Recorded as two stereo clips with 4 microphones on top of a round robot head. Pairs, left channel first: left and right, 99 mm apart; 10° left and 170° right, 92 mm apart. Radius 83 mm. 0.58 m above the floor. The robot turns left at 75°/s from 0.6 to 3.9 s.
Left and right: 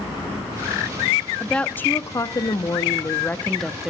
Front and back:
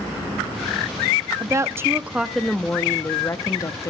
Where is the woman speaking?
175° left, 0.7 m; by 3.9 s 10° right, 0.7 m.